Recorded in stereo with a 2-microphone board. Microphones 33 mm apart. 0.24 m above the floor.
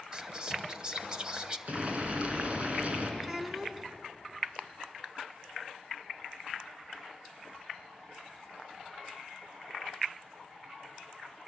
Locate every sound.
0.1 s whispering: 25° right (ahead or behind), 1.0 m
1.7 s boiling: 40° right (ahead or behind), 3 m
3.2 s a child speaking: 15° right (ahead or behind), 2 m